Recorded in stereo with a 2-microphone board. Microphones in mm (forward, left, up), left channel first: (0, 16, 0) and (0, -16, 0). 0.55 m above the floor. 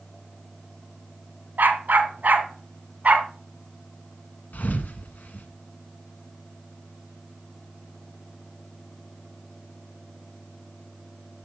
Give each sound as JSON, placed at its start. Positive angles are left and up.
{"t": 1.6, "sound": "a dog barking", "side_deg": -75, "distance_m": 1.8}
{"t": 4.5, "sound": "a thud", "side_deg": 70, "distance_m": 1.4}